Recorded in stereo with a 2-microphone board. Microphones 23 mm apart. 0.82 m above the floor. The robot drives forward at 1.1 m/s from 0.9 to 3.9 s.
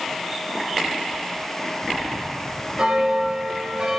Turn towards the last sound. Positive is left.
turn(degrees=-35)  # may be behind; listen again after turning